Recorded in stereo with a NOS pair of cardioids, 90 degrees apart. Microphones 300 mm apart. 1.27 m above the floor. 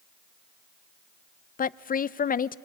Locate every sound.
1.6 s a woman speaking: 30° left, 0.5 m